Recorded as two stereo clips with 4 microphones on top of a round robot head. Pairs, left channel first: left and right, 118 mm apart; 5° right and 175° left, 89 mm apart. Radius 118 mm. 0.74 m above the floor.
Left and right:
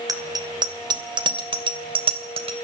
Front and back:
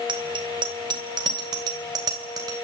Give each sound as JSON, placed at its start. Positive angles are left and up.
{"t": 0.1, "sound": "a bicycle bell", "azimuth_deg": -150, "distance_m": 2.5}